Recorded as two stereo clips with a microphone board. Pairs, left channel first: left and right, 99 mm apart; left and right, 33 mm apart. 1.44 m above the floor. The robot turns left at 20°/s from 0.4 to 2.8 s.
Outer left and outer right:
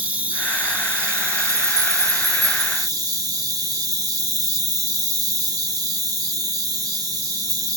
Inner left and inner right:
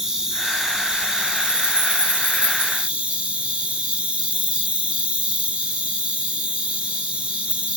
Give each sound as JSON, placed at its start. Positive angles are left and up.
{"t": 0.0, "sound": "an insect", "azimuth_deg": -25, "distance_m": 1.5}